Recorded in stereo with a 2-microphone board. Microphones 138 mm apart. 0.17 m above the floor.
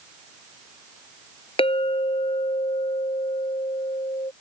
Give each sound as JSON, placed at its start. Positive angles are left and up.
{"t": 1.6, "sound": "a clink", "side_deg": 45}